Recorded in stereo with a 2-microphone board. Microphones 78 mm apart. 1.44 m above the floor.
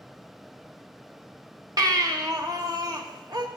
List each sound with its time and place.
1.8 s a baby crying: 55° right (ahead or behind), 1.0 m